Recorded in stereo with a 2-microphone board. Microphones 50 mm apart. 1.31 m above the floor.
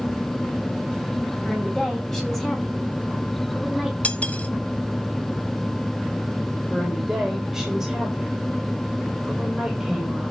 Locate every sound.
1.4 s a woman speaking: 10° left (ahead or behind), 7.5 m; by 3.9 s 5° right (ahead or behind), 4.5 m
4.0 s cutlery clinking: 30° left (ahead or behind), 1.1 m
6.7 s a woman speaking: centre (ahead or behind), 6 m